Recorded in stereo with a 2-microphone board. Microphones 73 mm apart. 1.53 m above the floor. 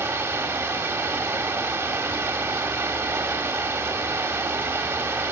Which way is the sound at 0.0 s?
35° right (ahead or behind).